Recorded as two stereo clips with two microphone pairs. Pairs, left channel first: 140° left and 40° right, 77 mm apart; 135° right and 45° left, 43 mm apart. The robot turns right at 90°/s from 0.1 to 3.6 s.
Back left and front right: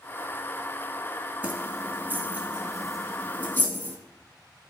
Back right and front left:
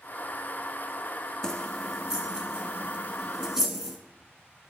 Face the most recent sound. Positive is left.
turn(degrees=115)